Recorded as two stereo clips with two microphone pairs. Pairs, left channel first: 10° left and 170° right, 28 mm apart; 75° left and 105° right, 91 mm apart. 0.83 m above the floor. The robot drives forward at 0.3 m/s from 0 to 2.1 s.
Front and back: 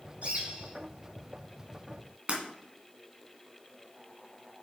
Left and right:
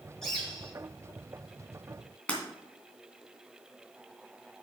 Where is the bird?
160° left, 4.5 m.